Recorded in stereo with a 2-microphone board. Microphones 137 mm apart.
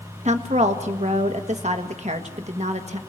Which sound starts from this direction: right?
A woman speaking, at 0.2 s.